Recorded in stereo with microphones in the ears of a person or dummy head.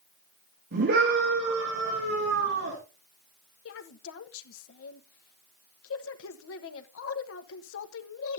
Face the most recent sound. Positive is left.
turn(degrees=80)